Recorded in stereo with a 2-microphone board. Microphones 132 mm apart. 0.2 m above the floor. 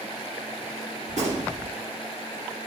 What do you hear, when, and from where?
1.1 s a gunshot: 65° right (ahead or behind), 2.5 m